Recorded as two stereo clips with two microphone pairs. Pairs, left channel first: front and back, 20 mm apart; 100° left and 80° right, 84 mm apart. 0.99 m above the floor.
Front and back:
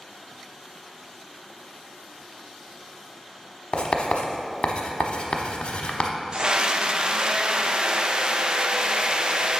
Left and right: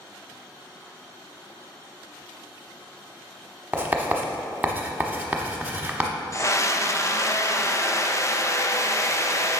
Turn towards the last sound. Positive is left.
turn(degrees=150)